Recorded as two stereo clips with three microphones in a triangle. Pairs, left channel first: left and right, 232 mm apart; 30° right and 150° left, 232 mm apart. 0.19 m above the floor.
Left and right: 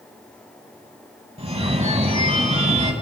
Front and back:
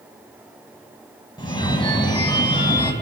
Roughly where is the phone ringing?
Right.